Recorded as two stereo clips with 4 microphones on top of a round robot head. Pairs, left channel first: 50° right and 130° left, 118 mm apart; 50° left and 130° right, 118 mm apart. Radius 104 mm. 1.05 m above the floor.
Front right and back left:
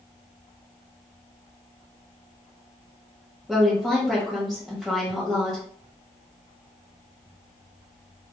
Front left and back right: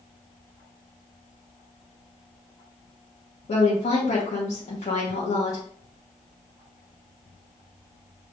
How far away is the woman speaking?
About 1.2 m.